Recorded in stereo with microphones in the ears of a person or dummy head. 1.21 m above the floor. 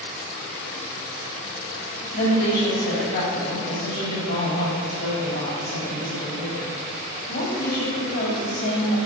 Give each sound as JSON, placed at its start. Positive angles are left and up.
{"t": 2.1, "sound": "a woman speaking", "side_deg": 50, "distance_m": 2.5}